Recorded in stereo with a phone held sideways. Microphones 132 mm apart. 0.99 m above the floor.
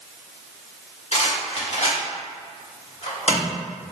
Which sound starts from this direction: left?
A rattle, at 1.1 s.